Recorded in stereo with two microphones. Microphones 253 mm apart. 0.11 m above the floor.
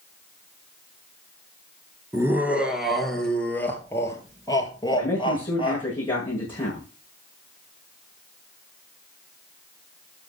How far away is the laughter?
About 1.9 m.